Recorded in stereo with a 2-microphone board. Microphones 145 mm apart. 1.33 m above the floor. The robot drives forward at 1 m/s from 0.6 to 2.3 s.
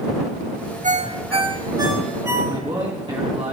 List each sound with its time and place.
0.8 s a ringtone: 60° right (ahead or behind), 0.7 m; by 2.9 s 20° right (ahead or behind), 1.6 m
2.5 s a man speaking: 35° right (ahead or behind), 1.7 m